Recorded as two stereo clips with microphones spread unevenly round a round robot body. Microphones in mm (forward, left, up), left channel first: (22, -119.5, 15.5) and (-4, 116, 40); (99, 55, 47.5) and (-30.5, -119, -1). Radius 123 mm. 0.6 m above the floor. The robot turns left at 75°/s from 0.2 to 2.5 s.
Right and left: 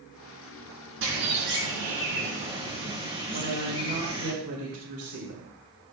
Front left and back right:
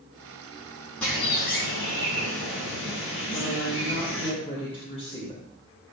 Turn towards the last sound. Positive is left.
turn(degrees=125)